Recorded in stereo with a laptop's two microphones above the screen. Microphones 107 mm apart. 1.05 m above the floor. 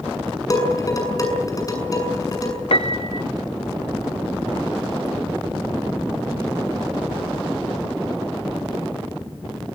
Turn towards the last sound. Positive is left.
turn(degrees=65)  # may be behind; listen again after turning